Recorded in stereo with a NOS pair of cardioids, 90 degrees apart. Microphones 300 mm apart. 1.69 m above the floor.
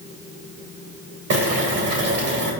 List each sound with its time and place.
1.3 s boiling: 60° right, 3.5 m